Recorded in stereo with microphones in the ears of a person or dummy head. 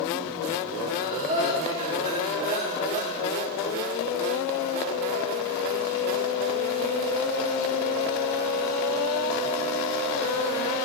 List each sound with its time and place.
0.9 s breathing: 35° right (ahead or behind), 3 m